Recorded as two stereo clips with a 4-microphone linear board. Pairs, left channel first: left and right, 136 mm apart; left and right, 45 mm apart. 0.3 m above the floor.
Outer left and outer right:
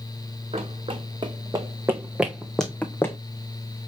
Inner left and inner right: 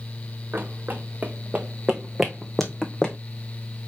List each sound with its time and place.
0.5 s running footsteps: 50° right (ahead or behind), 1.7 m; by 3.2 s 20° left (ahead or behind), 1.4 m